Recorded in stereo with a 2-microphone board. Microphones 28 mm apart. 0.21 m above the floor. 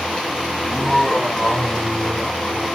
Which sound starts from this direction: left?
Laughter, at 0.6 s.